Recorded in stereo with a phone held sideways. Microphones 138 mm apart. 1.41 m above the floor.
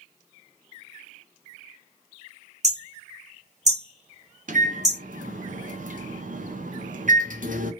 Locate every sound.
2.6 s hammering: 55° right (ahead or behind), 1.0 m
4.5 s a microwave: 70° right (ahead or behind), 0.6 m